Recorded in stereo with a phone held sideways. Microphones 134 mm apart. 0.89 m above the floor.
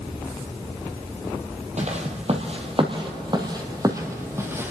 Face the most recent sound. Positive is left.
turn(degrees=-15)  # may be behind; listen again after turning